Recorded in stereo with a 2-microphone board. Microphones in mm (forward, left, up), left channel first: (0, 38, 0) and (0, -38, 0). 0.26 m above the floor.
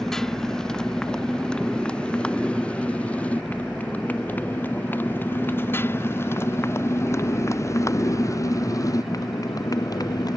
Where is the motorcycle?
5° left (ahead or behind); by 10.4 s 55° left (ahead or behind).